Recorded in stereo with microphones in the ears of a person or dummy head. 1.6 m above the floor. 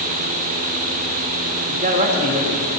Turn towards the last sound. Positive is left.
turn(degrees=-35)  # may be behind; listen again after turning